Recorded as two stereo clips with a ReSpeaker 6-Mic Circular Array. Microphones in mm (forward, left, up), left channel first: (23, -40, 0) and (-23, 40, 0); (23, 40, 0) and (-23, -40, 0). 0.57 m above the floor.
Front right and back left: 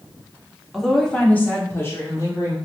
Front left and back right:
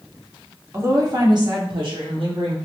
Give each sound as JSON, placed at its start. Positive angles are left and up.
{"t": 0.7, "sound": "a woman speaking", "azimuth_deg": -150, "distance_m": 0.8}